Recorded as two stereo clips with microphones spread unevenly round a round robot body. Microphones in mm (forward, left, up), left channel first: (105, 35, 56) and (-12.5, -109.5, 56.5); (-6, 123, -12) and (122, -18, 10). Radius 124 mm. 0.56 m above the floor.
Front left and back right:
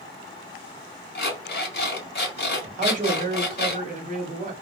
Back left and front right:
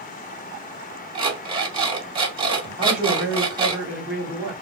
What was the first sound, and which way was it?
An alarm clock, 20° left.